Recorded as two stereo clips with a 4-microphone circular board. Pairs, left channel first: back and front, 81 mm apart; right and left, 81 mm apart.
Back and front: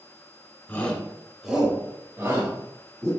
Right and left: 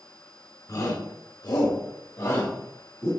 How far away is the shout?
About 2.5 m.